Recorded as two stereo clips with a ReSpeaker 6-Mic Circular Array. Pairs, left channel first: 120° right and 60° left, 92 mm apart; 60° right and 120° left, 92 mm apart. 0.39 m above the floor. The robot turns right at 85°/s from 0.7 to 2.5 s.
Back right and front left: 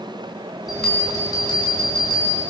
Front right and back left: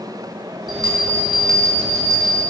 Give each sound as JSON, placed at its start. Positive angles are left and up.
{"t": 0.7, "sound": "a bell", "azimuth_deg": 145, "distance_m": 5.0}